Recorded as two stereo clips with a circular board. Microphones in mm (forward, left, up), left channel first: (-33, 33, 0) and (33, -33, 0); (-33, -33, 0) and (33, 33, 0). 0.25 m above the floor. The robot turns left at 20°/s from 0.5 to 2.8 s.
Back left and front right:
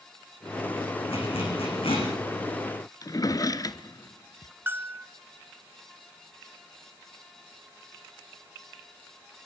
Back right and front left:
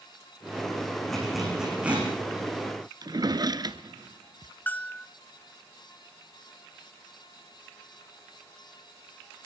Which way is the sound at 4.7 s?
85° right.